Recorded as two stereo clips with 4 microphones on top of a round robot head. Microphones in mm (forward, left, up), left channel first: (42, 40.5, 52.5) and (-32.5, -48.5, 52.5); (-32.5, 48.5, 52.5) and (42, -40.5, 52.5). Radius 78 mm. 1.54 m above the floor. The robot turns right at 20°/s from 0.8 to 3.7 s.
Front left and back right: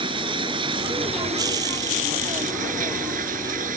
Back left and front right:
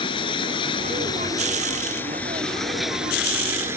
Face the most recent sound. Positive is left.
turn(degrees=-120)